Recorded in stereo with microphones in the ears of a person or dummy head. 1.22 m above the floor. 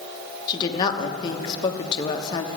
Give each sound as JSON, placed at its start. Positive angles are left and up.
{"t": 0.5, "sound": "a woman speaking", "side_deg": 25, "distance_m": 1.0}